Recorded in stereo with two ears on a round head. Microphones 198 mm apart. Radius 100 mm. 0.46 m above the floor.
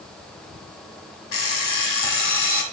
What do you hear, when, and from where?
1.3 s an alarm clock: 60° left (ahead or behind), 1.9 m